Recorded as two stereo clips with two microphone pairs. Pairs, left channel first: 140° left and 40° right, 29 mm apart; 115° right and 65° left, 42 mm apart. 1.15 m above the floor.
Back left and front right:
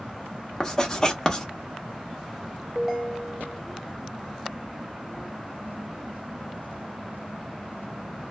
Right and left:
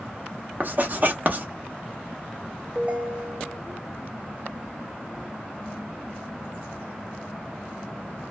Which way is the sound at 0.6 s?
80° left.